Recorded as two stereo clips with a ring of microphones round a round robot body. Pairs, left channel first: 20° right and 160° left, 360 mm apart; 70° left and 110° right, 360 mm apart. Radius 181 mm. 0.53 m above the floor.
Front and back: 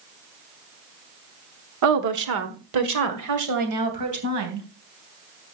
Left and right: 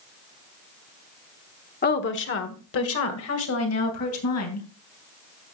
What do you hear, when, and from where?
1.8 s a woman speaking: 130° left, 1.1 m; by 4.7 s 115° left, 3.5 m